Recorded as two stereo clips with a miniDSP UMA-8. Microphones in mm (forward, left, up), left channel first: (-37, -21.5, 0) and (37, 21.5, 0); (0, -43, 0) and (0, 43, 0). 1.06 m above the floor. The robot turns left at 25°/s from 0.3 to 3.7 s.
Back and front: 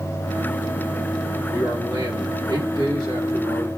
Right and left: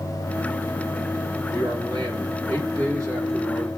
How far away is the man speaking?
About 3 m.